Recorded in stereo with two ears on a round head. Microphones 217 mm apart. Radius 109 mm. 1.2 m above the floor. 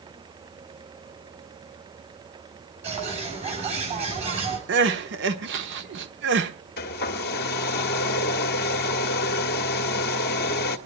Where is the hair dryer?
45° left (ahead or behind), 1.5 m.